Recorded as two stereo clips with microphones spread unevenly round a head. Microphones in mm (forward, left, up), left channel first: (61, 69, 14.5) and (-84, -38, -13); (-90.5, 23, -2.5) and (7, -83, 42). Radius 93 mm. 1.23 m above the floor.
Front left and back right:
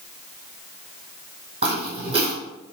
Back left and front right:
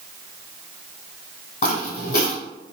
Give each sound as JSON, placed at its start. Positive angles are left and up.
{"t": 1.6, "sound": "footsteps", "azimuth_deg": 160, "distance_m": 1.8}